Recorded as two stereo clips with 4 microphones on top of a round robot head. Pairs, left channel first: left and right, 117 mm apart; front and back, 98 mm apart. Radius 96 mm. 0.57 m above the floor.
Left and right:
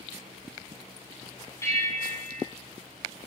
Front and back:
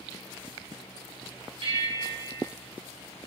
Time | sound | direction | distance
1.6 | a bell | 155° left | 2.5 m